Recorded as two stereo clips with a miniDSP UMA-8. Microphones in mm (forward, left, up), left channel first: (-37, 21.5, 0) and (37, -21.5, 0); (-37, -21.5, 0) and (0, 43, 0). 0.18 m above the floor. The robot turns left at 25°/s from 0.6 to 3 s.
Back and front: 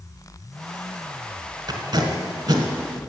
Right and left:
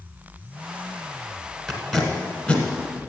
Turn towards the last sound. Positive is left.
turn(degrees=-65)